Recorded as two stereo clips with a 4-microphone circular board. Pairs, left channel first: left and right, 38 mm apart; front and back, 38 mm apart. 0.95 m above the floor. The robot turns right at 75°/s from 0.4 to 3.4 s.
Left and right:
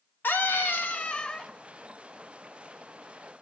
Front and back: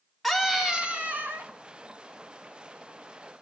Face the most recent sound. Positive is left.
turn(degrees=-45)